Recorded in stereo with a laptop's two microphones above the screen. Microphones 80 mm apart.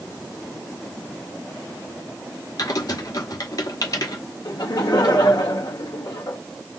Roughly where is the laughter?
Left.